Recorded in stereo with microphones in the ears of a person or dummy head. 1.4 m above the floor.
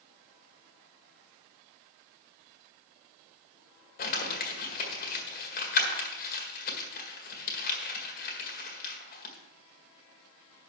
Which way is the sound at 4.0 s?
45° left (ahead or behind).